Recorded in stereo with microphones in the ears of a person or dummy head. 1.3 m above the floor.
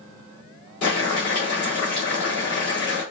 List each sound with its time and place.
0.8 s boiling: 80° left, 3 m